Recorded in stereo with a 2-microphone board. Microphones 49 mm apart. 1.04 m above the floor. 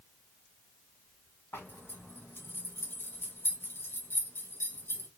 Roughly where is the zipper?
Left.